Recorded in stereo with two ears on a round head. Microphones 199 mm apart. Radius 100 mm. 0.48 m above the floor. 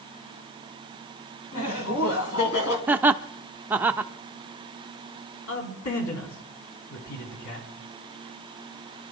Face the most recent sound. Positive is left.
turn(degrees=70)  # may be behind; listen again after turning